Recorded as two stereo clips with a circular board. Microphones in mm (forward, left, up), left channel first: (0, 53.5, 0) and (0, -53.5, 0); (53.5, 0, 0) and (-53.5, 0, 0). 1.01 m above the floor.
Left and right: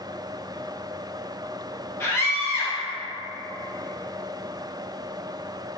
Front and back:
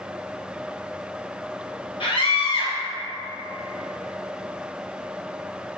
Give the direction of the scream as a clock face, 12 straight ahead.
11 o'clock.